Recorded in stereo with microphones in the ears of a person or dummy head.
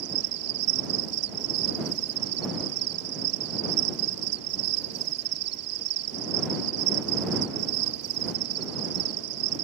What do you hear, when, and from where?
0.0 s an insect: 80° right